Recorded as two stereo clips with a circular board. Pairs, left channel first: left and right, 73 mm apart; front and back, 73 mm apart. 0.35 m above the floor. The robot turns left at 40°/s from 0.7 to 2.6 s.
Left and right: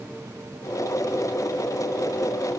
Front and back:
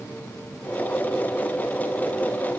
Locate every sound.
Only background noise.